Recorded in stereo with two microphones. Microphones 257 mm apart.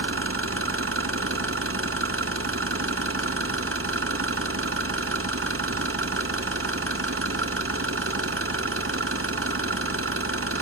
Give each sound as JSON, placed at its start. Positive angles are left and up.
{"t": 0.0, "sound": "an engine running", "side_deg": -55, "distance_m": 0.8}